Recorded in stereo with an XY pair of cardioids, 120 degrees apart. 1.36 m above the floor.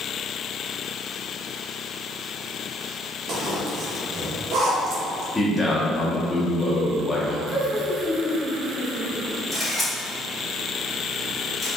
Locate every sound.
3.3 s a zipper: 55° right, 0.9 m
5.3 s a man speaking: 10° left, 1.0 m
7.5 s laughter: 40° left, 1.3 m
9.5 s a camera shutter: 5° left, 1.6 m